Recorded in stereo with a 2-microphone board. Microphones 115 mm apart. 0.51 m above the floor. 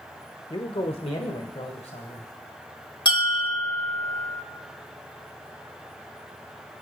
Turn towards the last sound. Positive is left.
turn(degrees=40)  # may be behind; listen again after turning